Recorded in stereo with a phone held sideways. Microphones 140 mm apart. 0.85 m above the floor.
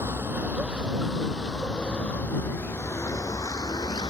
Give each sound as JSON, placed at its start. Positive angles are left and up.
{"t": 0.0, "sound": "a vehicle", "side_deg": -15}